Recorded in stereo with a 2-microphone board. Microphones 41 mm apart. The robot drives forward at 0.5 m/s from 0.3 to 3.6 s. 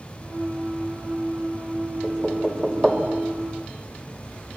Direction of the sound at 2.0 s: 10° right (ahead or behind).